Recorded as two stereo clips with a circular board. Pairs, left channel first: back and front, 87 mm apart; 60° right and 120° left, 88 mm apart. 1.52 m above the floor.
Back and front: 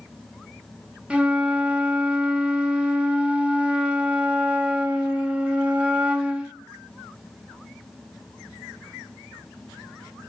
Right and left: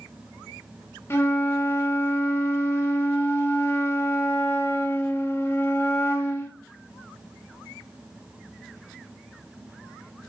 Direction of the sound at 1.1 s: 60° right.